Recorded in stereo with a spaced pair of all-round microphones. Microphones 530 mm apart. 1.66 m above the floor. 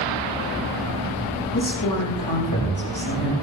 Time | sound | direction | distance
1.5 | a man speaking | 45° left (ahead or behind) | 7.5 m